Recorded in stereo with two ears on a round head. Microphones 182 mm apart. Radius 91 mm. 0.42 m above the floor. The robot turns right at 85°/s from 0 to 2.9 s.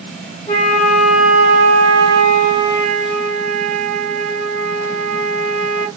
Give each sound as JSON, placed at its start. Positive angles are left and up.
{"t": 0.5, "sound": "a flute", "azimuth_deg": 140, "distance_m": 1.3}